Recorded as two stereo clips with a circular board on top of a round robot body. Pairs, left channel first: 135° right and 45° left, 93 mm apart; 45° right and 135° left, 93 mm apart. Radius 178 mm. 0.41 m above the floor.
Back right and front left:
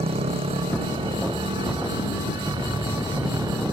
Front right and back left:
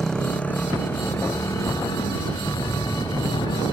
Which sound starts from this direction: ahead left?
A motorcycle, at 0.0 s.